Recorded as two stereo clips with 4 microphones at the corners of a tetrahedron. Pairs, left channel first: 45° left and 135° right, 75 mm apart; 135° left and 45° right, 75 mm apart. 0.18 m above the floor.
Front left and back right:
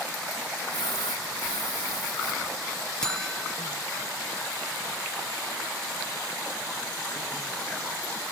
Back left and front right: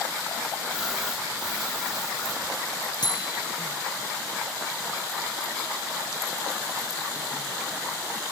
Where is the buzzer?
125° left.